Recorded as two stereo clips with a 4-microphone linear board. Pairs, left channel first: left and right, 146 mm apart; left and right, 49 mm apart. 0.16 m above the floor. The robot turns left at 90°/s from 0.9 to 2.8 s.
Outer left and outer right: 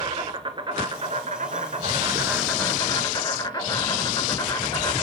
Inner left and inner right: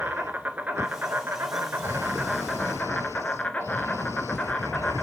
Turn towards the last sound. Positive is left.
turn(degrees=150)